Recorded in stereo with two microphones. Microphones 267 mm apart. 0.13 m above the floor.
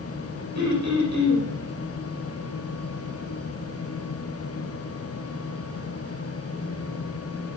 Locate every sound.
0.6 s throat clearing: 70° right (ahead or behind), 7 m